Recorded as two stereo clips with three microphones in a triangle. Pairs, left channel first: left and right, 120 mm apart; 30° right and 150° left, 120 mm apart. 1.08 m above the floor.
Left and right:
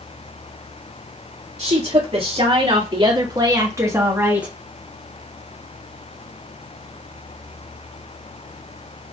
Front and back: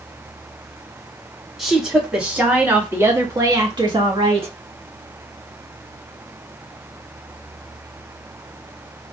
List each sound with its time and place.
1.6 s a woman speaking: 120° right, 2.5 m; by 4.5 s 170° right, 1.6 m